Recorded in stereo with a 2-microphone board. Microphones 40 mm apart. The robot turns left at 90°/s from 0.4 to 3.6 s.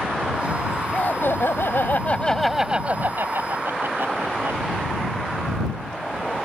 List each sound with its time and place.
0.9 s laughter: 140° left; by 4.6 s 100° right